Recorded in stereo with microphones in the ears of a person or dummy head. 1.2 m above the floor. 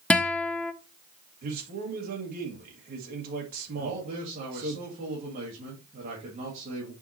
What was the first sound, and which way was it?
A guitar, 5° left (ahead or behind).